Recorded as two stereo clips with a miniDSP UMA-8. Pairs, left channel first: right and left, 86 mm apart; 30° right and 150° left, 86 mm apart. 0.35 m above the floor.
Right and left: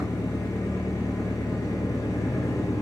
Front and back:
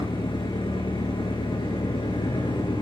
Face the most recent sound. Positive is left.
turn(degrees=-40)